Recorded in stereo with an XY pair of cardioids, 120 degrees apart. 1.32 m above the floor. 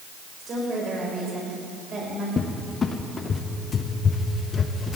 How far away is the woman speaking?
About 6.5 m.